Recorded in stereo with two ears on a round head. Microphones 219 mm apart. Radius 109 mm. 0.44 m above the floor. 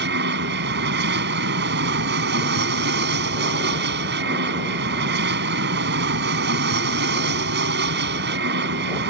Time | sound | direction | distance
0.0 | an aircraft | 45° right (ahead or behind) | ?